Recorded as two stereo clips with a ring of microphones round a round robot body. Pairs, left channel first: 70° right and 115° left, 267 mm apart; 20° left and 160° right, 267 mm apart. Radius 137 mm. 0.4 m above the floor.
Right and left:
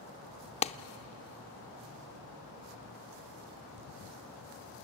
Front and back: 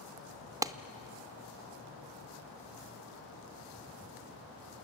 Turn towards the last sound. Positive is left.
turn(degrees=-95)